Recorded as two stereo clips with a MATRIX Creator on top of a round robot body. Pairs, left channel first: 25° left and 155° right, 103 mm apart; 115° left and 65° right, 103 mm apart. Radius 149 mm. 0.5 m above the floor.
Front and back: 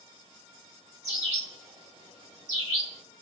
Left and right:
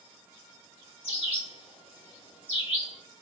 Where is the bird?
145° left, 2 m.